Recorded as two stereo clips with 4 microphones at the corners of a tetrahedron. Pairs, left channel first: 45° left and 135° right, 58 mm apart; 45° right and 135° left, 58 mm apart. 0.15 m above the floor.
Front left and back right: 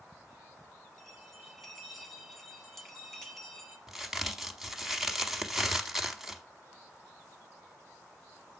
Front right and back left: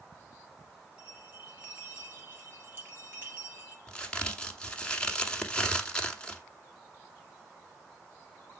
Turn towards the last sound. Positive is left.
turn(degrees=-65)